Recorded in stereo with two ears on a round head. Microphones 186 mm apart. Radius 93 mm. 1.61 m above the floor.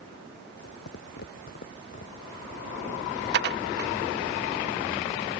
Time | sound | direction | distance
0.6 | footsteps | 60° left (ahead or behind) | ?
3.3 | dishes clattering | 55° right (ahead or behind) | ?